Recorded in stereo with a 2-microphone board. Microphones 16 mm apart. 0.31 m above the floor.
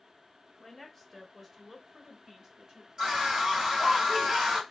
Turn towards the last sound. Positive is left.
turn(degrees=-50)  # may be behind; listen again after turning